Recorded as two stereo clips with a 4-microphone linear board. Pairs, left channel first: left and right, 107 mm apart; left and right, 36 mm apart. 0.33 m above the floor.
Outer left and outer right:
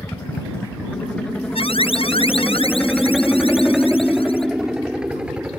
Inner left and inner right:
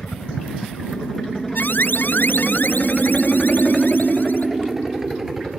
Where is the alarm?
60° left (ahead or behind).